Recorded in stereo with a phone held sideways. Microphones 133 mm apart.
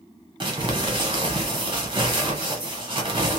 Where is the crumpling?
40° right (ahead or behind), 1.0 m.